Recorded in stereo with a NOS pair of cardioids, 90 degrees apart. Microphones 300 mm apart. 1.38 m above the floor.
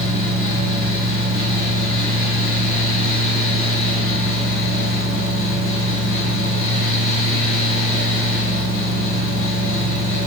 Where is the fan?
45° left, 1.7 m.